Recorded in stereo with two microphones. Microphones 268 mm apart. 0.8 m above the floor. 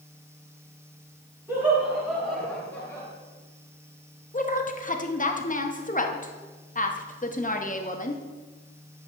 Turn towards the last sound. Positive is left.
turn(degrees=30)  # may be behind; listen again after turning